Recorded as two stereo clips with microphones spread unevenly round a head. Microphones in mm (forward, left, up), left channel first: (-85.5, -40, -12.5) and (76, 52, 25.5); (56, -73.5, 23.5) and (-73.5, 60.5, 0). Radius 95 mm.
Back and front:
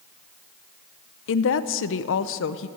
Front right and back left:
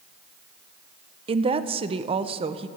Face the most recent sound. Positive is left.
turn(degrees=-165)